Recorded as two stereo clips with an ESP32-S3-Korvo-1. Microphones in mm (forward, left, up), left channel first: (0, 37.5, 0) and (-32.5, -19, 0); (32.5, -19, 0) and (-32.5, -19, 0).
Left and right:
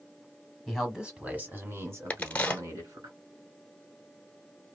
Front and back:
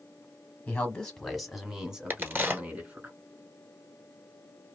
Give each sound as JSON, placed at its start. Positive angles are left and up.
{"t": 0.7, "sound": "a man speaking", "azimuth_deg": -25, "distance_m": 1.1}
{"t": 2.1, "sound": "a crack", "azimuth_deg": 130, "distance_m": 1.0}